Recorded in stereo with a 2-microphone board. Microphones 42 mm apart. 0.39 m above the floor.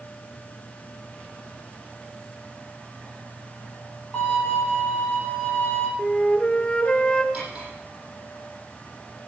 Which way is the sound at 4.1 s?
15° left (ahead or behind).